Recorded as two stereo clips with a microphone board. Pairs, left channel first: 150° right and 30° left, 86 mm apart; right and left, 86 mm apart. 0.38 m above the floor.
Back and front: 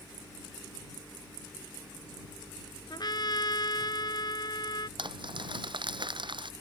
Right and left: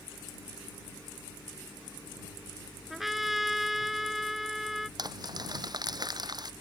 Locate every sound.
2.9 s a trumpet: straight behind
5.0 s crumpling: 50° left